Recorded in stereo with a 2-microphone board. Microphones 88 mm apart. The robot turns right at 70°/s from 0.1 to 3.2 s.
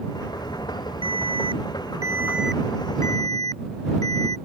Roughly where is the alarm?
Right.